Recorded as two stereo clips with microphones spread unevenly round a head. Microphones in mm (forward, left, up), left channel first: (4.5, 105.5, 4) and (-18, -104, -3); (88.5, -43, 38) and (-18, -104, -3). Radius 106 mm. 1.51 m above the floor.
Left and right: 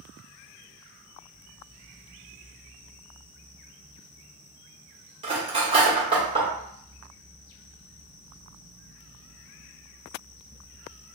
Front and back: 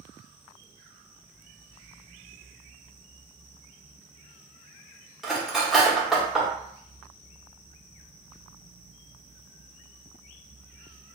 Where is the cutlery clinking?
40° right, 0.9 m.